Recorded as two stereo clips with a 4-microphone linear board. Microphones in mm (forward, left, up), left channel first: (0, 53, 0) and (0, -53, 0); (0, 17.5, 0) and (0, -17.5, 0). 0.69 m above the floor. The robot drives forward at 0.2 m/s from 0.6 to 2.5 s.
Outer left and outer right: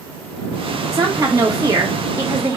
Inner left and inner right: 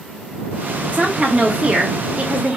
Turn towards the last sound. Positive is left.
turn(degrees=-25)  # may be behind; listen again after turning